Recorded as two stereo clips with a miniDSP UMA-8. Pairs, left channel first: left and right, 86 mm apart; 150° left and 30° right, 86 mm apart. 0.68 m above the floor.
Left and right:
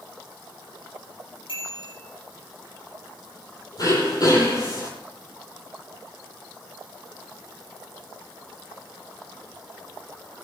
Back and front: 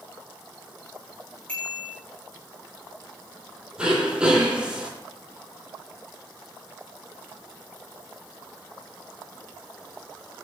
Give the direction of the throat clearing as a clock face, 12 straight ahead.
10 o'clock.